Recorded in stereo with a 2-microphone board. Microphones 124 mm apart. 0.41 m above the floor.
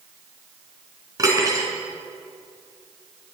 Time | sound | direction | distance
1.2 | cutlery clinking | 30° right (ahead or behind) | 3 m